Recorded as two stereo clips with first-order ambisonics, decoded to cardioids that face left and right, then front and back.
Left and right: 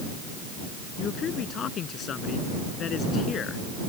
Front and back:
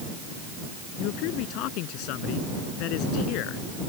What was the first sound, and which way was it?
A man speaking, 30° left.